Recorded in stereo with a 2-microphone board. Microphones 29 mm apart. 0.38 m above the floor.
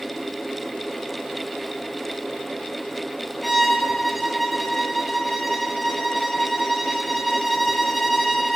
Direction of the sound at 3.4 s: Centre (ahead or behind).